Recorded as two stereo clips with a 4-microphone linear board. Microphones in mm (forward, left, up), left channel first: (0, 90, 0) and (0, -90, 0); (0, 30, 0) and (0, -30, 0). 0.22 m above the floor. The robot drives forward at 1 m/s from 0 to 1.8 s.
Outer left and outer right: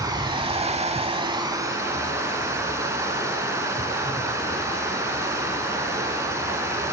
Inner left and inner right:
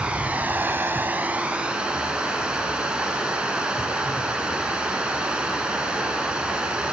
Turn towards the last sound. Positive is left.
turn(degrees=-15)  # may be behind; listen again after turning